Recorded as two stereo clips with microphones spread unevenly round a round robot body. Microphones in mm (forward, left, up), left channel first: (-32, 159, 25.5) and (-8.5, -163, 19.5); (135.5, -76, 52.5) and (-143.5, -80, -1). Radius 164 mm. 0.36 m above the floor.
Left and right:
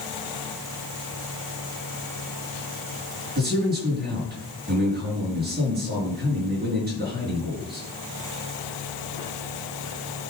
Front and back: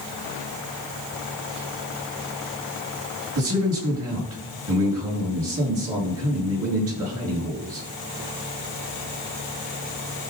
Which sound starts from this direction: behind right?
A man speaking, at 3.4 s.